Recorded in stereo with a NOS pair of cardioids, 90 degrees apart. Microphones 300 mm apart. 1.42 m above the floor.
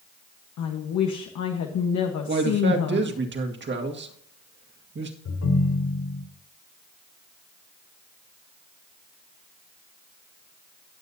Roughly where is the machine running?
I don't hear a machine running.